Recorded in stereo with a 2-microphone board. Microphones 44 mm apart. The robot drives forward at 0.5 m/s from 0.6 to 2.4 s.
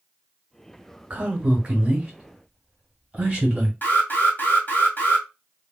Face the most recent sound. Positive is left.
turn(degrees=45)  # may be behind; listen again after turning